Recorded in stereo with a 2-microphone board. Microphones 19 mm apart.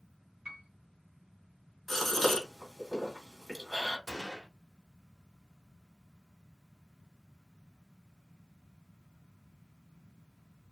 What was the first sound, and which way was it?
A piano, 50° right (ahead or behind).